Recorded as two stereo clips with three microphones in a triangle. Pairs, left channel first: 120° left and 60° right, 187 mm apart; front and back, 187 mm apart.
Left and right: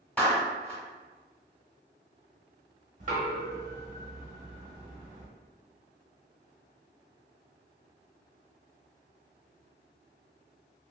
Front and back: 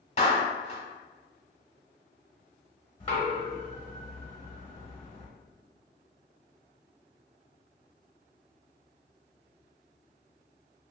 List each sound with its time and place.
0.2 s a clap: 40° left, 1.1 m
3.0 s knocking: 45° right, 0.8 m